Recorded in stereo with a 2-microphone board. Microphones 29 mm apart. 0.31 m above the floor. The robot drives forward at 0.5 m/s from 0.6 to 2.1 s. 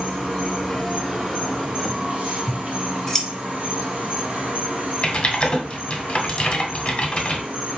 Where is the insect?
30° right (ahead or behind), 2 m; by 7.8 s 45° right (ahead or behind), 1.7 m.